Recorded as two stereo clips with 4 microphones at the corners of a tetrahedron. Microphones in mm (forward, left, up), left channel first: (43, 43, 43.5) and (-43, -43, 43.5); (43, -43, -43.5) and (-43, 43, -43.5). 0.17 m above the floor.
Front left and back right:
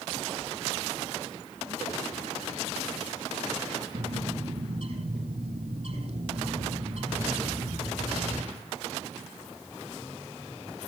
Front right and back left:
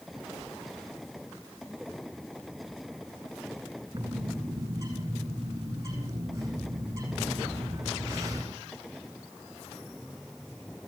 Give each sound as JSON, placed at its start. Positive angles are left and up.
{"t": 3.9, "sound": "a bird", "azimuth_deg": -160, "distance_m": 8.0}